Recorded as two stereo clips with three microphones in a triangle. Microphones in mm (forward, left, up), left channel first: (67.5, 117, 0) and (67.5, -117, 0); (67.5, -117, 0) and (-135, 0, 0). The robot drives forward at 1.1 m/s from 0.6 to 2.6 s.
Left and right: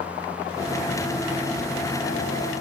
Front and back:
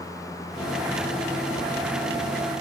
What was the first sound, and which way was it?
Only background noise.